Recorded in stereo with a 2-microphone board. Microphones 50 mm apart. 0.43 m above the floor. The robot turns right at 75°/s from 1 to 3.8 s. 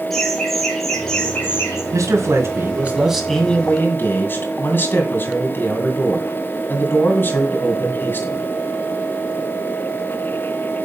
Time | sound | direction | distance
0.1 | laughter | 5° left | 6.5 m
1.9 | a man speaking | 95° right | 2.5 m